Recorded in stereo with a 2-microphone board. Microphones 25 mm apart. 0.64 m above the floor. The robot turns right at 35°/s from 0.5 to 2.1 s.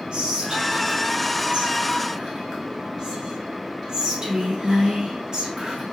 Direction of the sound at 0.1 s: 45° right (ahead or behind).